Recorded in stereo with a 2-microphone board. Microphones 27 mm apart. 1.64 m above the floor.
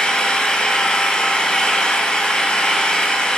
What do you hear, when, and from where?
0.0 s an engine running: 35° left (ahead or behind), 3 m